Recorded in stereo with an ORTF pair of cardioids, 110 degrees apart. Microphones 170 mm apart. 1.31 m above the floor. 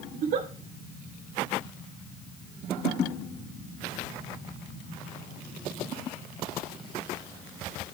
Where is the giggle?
65° right, 2.5 m.